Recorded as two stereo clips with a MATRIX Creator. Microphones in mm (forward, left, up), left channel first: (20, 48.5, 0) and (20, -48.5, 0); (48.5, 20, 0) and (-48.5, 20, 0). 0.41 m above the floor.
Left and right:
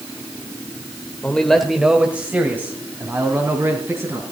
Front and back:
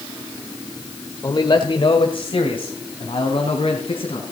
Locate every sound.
1.2 s a man speaking: 20° left, 1.0 m; by 4.3 s 30° right, 3.5 m